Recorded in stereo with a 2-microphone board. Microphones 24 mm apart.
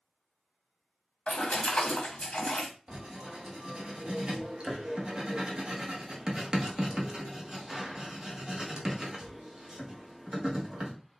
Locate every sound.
1.3 s a splash: 60° left (ahead or behind), 1.3 m
2.9 s writing: 35° right (ahead or behind), 1.1 m